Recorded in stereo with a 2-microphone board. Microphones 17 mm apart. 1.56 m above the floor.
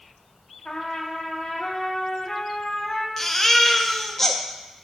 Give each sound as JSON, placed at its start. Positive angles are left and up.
{"t": 0.7, "sound": "a trumpet", "side_deg": 45, "distance_m": 1.2}
{"t": 3.2, "sound": "a baby crying", "side_deg": 15, "distance_m": 0.6}